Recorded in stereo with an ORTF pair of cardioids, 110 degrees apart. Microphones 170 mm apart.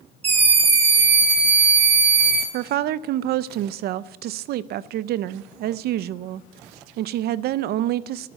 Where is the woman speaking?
70° right, 0.5 m.